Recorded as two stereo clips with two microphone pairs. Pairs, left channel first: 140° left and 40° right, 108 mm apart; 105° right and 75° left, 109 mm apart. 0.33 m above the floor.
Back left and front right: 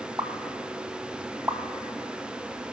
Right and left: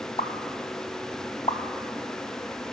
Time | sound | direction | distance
0.2 | a pop | 95° right | 0.7 m